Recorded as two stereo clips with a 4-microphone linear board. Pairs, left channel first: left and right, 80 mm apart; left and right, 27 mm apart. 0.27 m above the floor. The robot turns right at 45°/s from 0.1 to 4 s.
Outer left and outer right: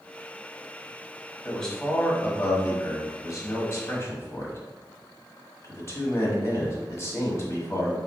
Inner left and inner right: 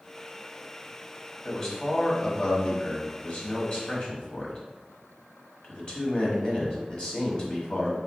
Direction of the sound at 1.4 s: 5° left (ahead or behind).